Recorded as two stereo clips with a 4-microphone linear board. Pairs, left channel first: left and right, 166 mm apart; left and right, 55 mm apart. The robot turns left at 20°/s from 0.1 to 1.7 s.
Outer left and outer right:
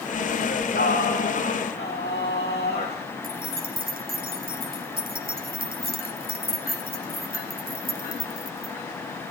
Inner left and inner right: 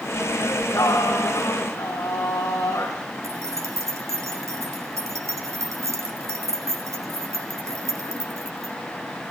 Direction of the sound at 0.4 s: 75° left (ahead or behind).